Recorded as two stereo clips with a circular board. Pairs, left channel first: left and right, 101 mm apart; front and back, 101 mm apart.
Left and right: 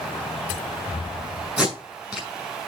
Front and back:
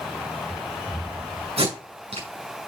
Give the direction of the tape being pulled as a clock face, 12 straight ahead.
6 o'clock.